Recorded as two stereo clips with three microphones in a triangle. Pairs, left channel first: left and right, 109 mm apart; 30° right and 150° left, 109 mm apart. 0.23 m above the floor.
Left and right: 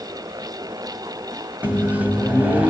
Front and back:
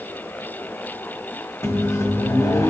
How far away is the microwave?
About 1.4 m.